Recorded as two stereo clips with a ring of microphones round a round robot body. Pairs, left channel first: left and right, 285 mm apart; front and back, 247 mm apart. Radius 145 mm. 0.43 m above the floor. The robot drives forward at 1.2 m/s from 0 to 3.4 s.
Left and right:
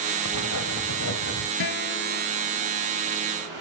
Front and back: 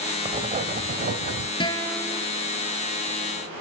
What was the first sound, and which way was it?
Writing, 110° left.